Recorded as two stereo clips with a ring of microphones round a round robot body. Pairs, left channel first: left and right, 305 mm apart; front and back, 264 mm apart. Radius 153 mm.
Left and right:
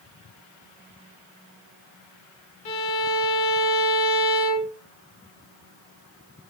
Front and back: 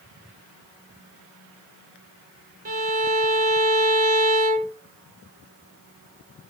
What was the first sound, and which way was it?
A violin, 120° left.